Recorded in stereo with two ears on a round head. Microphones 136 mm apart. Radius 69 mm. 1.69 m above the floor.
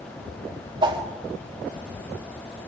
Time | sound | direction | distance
0.8 | a whoosh | 30° right (ahead or behind) | 4 m